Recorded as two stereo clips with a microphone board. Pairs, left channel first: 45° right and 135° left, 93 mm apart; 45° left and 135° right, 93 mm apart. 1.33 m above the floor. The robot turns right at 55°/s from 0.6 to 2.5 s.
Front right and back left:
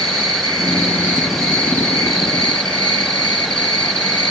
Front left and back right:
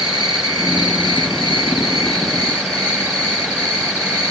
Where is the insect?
Straight behind, 2.5 m; by 4.3 s 75° right, 2.5 m.